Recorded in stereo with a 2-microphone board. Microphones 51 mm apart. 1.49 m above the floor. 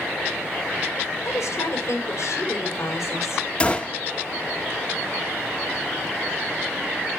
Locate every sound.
1.2 s a woman speaking: 65° left (ahead or behind), 5 m
3.6 s a gunshot: 25° left (ahead or behind), 1.5 m